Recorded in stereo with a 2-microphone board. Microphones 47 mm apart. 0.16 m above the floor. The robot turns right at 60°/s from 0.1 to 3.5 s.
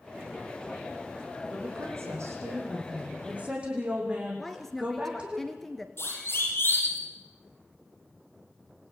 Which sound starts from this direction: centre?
A woman speaking, at 4.4 s.